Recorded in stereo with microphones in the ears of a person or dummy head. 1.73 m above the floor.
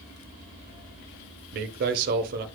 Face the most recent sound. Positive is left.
turn(degrees=-55)  # may be behind; listen again after turning